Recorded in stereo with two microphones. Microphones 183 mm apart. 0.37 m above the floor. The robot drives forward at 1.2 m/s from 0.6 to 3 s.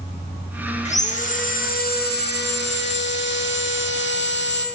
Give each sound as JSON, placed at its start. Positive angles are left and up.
{"t": 0.8, "sound": "sawing", "side_deg": 40, "distance_m": 3.5}